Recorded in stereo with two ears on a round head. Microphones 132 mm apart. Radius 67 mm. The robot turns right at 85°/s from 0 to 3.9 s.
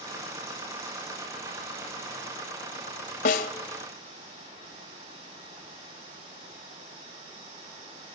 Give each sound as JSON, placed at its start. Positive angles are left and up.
{"t": 3.2, "sound": "a snare drum", "side_deg": 60, "distance_m": 3.0}